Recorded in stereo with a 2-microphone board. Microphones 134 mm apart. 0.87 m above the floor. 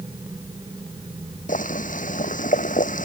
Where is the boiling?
75° left (ahead or behind).